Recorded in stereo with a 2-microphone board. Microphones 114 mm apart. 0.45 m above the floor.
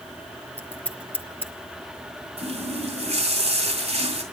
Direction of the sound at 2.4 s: 70° right (ahead or behind).